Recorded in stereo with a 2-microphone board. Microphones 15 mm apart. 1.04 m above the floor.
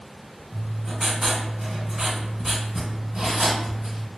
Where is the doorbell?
No doorbell in this recording.